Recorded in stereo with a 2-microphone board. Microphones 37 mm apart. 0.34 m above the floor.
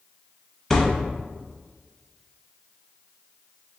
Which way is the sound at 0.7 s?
5° left (ahead or behind).